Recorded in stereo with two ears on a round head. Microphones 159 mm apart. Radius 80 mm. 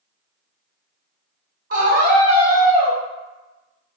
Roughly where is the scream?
Right.